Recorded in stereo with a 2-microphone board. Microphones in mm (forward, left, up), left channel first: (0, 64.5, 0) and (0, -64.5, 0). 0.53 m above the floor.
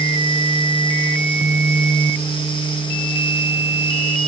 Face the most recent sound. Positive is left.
No sound to turn to.